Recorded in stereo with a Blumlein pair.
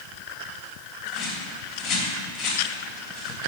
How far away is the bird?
About 4 m.